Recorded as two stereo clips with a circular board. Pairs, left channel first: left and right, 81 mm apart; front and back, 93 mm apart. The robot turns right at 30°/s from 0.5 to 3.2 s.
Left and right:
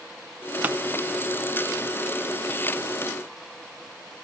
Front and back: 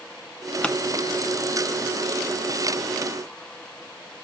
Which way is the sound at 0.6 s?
60° right.